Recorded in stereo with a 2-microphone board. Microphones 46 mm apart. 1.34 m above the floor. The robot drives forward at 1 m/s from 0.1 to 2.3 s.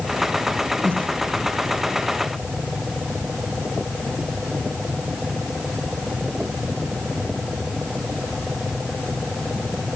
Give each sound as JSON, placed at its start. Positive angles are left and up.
{"t": 0.8, "sound": "breathing", "side_deg": 35, "distance_m": 4.0}